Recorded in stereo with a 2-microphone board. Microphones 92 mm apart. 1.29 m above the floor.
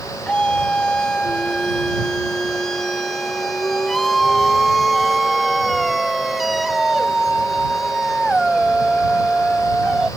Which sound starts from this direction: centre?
A scream, at 0.3 s.